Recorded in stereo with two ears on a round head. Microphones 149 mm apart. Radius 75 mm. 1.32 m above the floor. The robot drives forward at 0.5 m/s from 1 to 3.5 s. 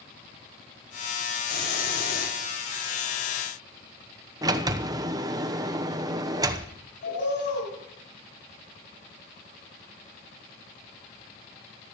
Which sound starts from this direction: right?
A sliding door, at 4.4 s.